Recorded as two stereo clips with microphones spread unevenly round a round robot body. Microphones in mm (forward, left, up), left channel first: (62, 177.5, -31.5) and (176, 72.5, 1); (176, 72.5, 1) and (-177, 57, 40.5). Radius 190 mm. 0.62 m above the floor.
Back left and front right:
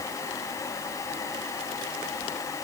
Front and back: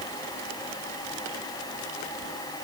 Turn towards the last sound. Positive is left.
No sound to turn to.